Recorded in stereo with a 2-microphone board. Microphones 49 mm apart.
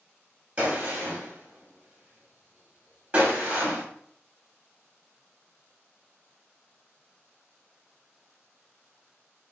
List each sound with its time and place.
0.6 s a gunshot: 25° right (ahead or behind), 1.2 m